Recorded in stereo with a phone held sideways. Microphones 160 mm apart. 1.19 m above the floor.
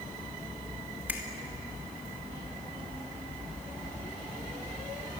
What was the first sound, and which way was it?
A finger snap, 10° right (ahead or behind).